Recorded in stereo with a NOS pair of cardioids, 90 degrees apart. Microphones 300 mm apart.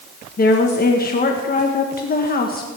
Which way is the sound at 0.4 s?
30° left.